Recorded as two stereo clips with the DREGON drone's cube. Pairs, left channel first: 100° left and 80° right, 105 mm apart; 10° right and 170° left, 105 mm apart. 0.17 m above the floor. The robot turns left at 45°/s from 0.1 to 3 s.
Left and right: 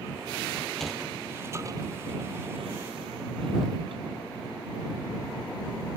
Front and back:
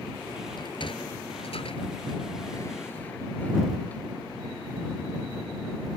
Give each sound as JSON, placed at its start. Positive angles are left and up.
{"t": 0.6, "sound": "a sliding door", "azimuth_deg": 25}